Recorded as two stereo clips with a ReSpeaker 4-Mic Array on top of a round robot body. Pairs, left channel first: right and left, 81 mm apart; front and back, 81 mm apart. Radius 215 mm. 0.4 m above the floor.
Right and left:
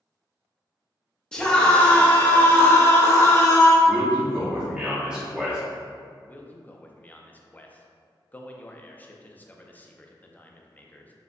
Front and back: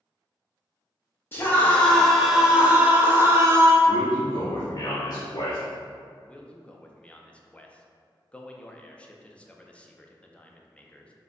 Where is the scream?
20° right, 1.2 m; by 3.8 s 135° right, 1.7 m.